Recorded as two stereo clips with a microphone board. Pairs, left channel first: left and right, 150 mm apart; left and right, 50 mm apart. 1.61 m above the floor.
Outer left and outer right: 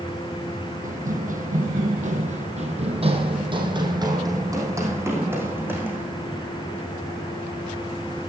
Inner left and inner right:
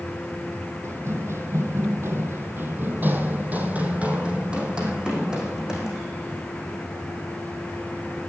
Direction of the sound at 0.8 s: 65° right (ahead or behind).